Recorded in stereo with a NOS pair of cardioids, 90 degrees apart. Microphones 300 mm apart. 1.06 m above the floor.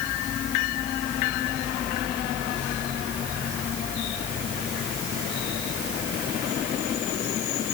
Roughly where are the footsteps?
No footsteps in this recording.